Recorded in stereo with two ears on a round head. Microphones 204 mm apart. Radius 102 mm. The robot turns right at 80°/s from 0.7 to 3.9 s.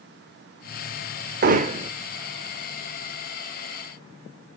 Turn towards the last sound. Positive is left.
turn(degrees=135)